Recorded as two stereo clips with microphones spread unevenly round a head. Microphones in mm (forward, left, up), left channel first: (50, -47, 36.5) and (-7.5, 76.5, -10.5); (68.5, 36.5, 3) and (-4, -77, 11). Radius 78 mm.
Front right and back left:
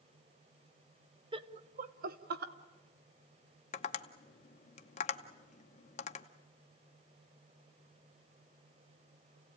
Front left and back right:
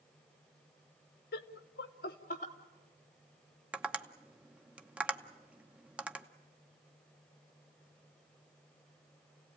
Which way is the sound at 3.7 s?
40° right.